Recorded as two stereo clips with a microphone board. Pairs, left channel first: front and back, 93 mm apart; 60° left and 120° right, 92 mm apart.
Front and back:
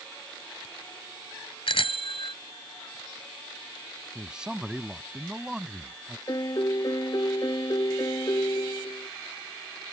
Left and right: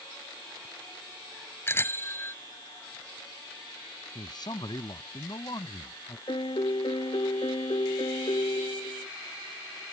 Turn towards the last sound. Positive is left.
turn(degrees=40)